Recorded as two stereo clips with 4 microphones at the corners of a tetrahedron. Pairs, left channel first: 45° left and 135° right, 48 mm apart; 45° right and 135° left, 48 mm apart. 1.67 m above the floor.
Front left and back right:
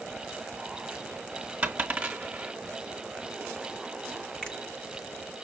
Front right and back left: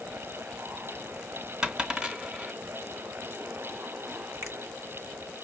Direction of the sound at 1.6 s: 170° right.